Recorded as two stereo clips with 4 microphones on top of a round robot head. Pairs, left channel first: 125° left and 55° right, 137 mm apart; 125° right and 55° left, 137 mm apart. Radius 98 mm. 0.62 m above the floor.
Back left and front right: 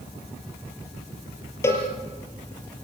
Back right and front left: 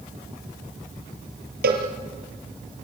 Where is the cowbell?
55° left, 5 m.